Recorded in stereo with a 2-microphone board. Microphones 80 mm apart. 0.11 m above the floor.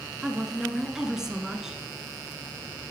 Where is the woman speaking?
5° right (ahead or behind), 1.5 m.